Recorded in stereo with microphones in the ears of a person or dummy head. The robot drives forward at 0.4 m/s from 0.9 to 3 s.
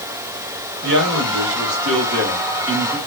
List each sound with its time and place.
0.8 s a man speaking: 60° right (ahead or behind), 1.5 m; by 3.0 s 70° right (ahead or behind), 1.4 m